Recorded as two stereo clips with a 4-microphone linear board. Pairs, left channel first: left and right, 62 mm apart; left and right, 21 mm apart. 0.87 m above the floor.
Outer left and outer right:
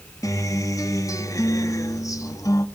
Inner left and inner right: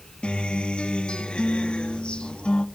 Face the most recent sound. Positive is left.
turn(degrees=70)  # may be behind; listen again after turning